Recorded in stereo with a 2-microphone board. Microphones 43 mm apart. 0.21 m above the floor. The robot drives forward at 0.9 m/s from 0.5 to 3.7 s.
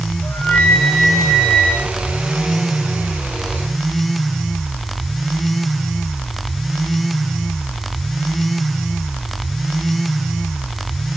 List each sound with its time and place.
0.2 s a flute: 65° left (ahead or behind), 8.5 m; by 1.9 s 55° left (ahead or behind), 9 m